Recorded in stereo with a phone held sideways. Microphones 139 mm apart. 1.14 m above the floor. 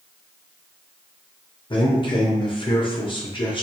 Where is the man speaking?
35° left (ahead or behind), 0.7 m.